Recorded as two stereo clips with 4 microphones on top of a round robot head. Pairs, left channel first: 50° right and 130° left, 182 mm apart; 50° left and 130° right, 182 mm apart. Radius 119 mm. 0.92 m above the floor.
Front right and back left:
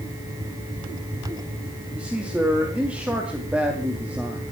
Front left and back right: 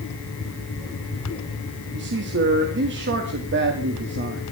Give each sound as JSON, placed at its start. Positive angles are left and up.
{"t": 1.9, "sound": "a man speaking", "azimuth_deg": -145, "distance_m": 2.0}